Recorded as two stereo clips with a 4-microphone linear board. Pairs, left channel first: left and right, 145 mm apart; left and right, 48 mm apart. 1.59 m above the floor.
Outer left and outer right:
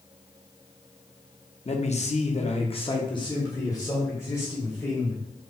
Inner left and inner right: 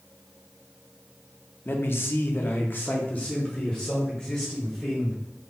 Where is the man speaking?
45° left (ahead or behind), 0.6 m; by 5.2 s 15° left (ahead or behind), 1.8 m.